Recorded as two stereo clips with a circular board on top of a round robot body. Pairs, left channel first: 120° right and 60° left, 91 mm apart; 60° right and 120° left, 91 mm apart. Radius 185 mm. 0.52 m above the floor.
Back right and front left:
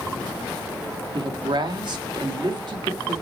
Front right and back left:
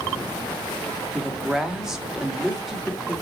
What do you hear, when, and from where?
1.1 s a woman speaking: 35° left, 1.5 m